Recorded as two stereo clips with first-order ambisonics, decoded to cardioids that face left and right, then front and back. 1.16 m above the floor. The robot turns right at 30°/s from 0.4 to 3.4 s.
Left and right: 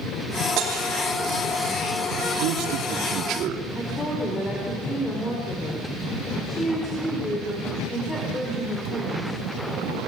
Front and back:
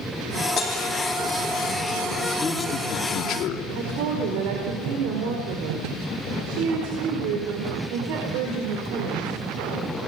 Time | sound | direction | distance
0.6 | breaking glass | 55° right | 4 m
2.4 | a man speaking | 75° right | 2.5 m
3.8 | a woman speaking | 165° left | 4.5 m